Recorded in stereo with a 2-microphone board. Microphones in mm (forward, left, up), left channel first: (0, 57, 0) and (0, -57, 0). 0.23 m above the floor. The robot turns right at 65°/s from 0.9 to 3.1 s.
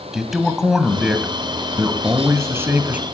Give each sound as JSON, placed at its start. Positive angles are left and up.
{"t": 0.1, "sound": "a man speaking", "side_deg": -5, "distance_m": 1.4}